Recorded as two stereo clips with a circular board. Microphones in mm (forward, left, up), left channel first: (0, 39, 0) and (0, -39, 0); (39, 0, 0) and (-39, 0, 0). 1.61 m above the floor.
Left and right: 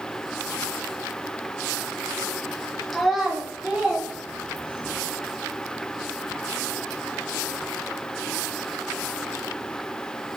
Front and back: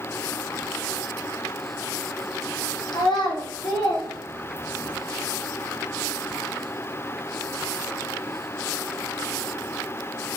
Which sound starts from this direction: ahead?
A child speaking, at 2.9 s.